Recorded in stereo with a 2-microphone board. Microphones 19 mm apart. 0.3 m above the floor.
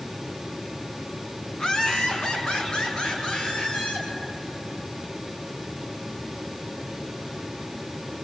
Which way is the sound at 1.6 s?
40° left (ahead or behind).